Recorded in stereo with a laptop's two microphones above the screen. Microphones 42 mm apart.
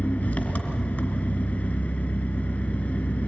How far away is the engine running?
About 3 m.